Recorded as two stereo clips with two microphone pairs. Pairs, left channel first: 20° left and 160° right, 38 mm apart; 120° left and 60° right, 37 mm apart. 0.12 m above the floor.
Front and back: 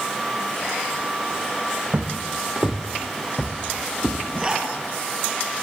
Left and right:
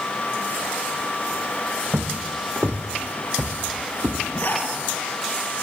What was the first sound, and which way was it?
Footsteps, 105° right.